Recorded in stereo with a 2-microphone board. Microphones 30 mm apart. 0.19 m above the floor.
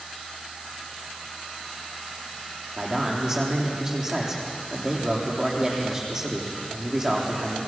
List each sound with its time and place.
2.8 s a man speaking: 20° right (ahead or behind), 7.5 m